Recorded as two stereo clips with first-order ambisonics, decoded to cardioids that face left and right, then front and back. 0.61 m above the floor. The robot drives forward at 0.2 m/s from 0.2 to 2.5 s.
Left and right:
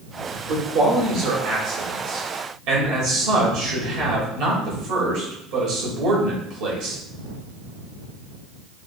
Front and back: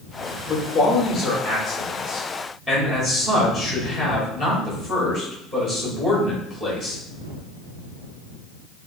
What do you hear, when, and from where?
0.5 s a man speaking: 80° right, 1.5 m; by 7.0 s 95° right, 1.5 m